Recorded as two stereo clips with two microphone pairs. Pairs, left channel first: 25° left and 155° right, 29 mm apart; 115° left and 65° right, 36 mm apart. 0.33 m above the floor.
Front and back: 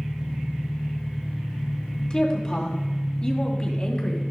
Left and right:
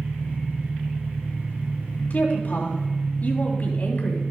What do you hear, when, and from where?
0.0 s an engine running: 90° right, 2.0 m
2.1 s a woman speaking: 85° left, 2.5 m